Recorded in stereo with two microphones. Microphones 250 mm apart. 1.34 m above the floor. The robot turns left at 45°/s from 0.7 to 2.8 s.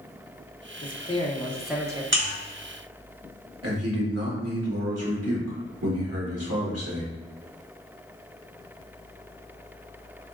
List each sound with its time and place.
0.8 s a man speaking: 35° left, 0.7 m; by 2.0 s 20° right, 0.7 m
2.1 s a buzzer: 50° right (ahead or behind), 1.3 m; by 2.3 s 45° right (ahead or behind), 1.3 m
3.6 s a man speaking: 75° right (ahead or behind), 1.6 m